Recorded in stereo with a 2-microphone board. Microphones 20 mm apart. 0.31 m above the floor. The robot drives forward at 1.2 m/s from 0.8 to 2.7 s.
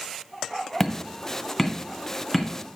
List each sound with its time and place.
0.8 s hammering: 15° left (ahead or behind), 1.3 m; by 2.5 s 5° left (ahead or behind), 3 m